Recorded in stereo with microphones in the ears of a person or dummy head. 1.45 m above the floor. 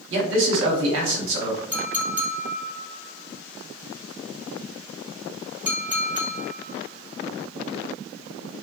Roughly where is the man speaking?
Right.